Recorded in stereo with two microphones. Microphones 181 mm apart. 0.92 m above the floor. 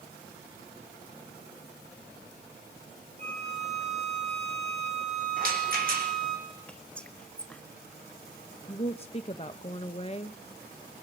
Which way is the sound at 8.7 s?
35° left (ahead or behind).